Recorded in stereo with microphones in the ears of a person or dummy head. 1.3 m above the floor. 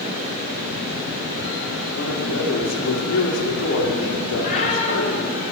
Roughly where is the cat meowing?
Left.